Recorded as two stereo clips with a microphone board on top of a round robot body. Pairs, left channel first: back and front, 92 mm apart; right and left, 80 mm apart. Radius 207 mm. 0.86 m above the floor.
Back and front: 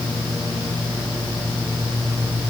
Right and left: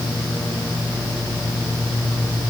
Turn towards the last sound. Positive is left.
No sound to turn to.